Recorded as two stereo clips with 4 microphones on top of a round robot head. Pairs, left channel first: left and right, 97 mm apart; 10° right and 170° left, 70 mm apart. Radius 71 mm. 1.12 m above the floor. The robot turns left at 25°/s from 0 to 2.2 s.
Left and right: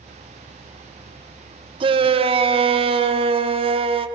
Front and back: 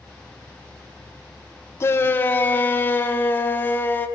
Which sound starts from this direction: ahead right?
A shout, at 1.8 s.